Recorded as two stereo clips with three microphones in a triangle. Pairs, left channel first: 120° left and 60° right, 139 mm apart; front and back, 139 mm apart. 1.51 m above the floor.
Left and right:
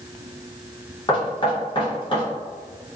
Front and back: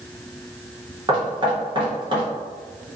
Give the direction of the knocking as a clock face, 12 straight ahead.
7 o'clock.